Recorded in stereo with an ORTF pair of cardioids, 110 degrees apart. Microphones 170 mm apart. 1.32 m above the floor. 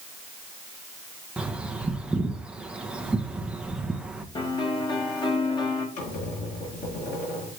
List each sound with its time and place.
1.4 s a bird: 5° right, 1.0 m
4.3 s a piano: 30° left, 2.5 m
6.0 s a squeak: 45° left, 4 m